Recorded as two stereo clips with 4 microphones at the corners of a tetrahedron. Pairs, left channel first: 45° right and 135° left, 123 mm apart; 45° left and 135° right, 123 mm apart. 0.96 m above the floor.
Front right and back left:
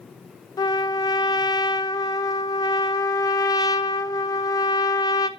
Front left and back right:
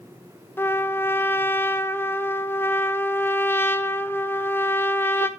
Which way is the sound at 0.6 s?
15° right.